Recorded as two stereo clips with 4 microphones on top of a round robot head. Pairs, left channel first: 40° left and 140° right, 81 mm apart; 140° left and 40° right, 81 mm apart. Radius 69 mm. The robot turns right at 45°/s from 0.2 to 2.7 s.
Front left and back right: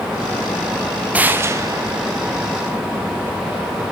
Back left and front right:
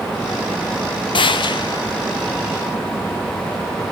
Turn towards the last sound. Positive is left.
turn(degrees=-145)